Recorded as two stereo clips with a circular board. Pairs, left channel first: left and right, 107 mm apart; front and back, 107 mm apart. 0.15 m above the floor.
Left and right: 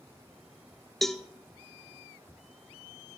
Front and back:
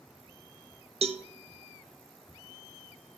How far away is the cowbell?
About 0.6 m.